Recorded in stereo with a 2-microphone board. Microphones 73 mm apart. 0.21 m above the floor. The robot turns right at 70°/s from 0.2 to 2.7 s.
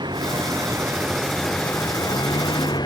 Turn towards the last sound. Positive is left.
turn(degrees=75)  # may be behind; listen again after turning